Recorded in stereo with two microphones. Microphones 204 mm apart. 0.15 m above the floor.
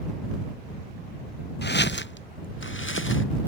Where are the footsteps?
60° left (ahead or behind); by 3.2 s 90° left.